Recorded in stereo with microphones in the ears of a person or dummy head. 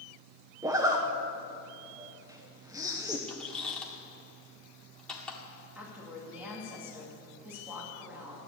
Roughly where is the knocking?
No knocking in this recording.